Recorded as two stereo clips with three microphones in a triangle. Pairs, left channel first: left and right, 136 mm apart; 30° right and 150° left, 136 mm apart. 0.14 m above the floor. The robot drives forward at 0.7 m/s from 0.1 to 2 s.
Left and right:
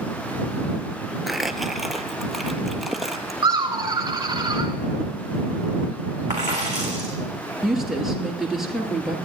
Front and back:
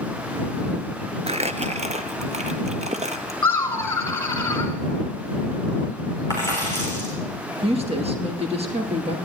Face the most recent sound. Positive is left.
turn(degrees=-175)